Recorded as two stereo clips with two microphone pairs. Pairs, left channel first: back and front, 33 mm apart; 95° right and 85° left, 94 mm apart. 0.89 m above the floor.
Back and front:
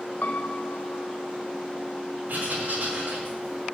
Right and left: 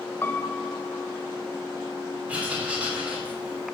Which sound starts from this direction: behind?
A piano, at 0.2 s.